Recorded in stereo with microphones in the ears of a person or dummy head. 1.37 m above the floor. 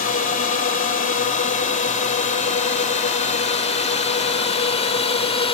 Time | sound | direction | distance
0.0 | a drone | 45° left (ahead or behind) | ?